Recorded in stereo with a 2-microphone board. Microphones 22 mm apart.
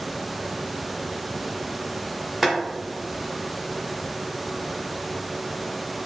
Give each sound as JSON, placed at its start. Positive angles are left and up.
{"t": 2.4, "sound": "boiling", "side_deg": -10, "distance_m": 1.1}